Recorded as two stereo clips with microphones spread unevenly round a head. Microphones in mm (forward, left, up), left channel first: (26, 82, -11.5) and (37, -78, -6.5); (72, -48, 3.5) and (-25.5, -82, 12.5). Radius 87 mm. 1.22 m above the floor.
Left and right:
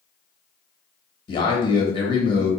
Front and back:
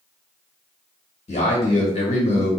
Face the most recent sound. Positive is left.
turn(degrees=35)